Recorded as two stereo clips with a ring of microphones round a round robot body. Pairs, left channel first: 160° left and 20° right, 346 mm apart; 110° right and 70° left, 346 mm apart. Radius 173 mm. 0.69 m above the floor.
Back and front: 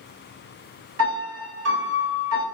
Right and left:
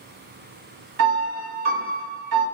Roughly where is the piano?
Ahead left.